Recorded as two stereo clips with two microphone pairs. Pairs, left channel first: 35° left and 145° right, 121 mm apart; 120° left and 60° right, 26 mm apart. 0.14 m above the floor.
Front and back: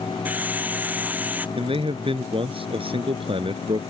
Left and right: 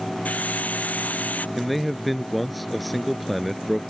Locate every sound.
0.2 s a hiss: 135° left
1.6 s a man speaking: 150° right